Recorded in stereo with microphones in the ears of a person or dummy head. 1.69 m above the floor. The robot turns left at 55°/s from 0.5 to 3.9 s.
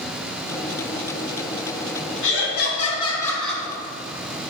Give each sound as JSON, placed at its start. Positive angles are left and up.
{"t": 2.2, "sound": "laughter", "azimuth_deg": 80, "distance_m": 3.0}